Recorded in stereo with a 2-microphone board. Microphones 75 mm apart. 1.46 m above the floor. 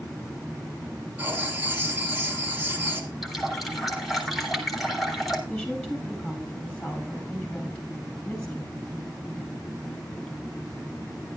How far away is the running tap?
About 3 m.